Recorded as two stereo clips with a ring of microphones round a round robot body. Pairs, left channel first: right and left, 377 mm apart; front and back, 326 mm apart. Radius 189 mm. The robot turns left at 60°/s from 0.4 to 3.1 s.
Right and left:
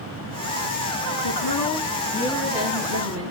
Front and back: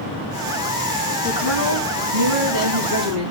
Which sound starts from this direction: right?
A woman speaking, at 1.2 s.